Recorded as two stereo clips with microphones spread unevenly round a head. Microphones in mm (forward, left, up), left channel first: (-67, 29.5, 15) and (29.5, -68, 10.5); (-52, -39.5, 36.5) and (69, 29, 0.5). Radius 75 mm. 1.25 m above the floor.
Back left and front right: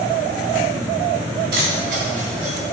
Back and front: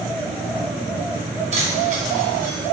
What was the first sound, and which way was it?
Keys jangling, 15° right.